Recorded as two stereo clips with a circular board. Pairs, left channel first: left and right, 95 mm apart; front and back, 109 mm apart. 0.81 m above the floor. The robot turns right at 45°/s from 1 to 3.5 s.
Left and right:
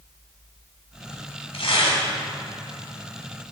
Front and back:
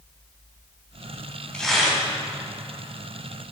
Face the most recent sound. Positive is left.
turn(degrees=170)